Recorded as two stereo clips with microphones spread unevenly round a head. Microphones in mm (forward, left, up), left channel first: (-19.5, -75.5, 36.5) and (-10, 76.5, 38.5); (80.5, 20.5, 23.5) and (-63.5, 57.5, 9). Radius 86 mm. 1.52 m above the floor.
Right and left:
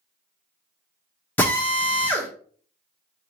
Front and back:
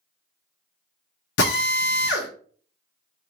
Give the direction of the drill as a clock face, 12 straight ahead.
12 o'clock.